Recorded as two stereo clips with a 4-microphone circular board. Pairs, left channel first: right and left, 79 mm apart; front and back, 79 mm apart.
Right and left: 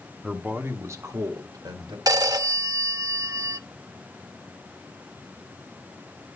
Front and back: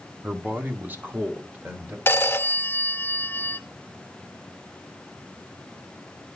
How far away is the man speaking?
About 1.0 m.